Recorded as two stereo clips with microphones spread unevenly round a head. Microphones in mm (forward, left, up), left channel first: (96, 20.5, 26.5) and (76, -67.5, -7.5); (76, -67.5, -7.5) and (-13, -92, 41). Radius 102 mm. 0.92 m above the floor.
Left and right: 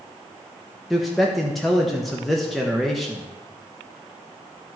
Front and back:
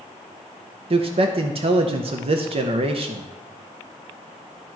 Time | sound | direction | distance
0.9 | a man speaking | 145° right | 0.7 m